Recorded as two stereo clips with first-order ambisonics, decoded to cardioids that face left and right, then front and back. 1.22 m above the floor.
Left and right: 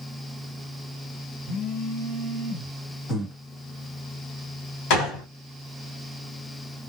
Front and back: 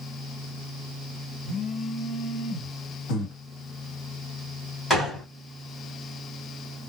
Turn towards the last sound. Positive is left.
turn(degrees=80)